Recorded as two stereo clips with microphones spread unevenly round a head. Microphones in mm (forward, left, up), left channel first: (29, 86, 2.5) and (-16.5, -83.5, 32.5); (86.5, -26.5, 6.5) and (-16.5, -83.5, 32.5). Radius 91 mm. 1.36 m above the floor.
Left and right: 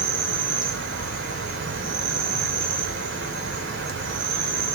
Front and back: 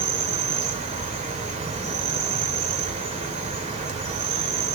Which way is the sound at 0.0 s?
130° right.